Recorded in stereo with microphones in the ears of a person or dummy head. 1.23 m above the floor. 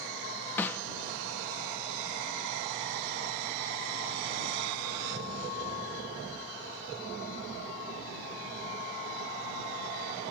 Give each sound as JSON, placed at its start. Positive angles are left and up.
{"t": 0.6, "sound": "a snare drum", "side_deg": 15}